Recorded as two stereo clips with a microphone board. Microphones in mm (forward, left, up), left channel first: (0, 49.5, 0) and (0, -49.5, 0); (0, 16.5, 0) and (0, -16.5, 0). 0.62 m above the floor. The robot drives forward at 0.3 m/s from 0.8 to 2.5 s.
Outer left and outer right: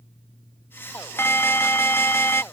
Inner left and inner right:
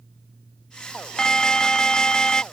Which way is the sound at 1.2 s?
25° left (ahead or behind).